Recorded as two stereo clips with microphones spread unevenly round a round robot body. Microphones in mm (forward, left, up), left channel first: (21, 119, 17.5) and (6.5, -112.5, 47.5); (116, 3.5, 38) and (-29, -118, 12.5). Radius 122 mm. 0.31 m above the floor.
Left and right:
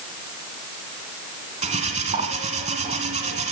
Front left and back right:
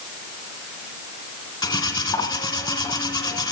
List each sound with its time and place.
1.6 s cutlery clinking: 30° right, 2.5 m